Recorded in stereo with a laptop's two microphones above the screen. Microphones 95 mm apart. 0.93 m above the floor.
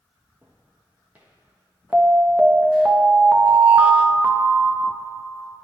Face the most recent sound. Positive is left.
turn(degrees=-15)  # may be behind; listen again after turning